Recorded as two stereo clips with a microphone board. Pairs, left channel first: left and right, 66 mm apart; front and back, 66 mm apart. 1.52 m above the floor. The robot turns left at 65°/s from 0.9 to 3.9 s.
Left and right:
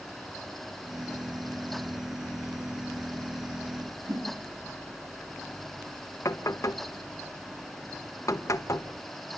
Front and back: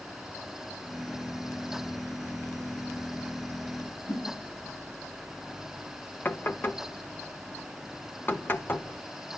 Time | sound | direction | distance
4.1 | a whoosh | 55° right | 8.5 m
6.2 | knocking | 55° left | 1.2 m